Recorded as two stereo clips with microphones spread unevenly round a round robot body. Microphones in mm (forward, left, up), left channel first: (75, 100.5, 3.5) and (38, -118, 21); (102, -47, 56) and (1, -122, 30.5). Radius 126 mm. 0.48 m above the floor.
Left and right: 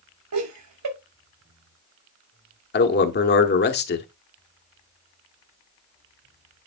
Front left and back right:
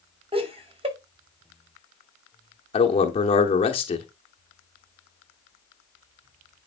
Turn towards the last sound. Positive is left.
turn(degrees=85)